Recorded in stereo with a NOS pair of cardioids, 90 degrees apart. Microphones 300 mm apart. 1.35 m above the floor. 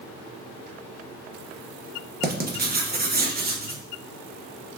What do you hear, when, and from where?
2.2 s writing: 30° right, 1.1 m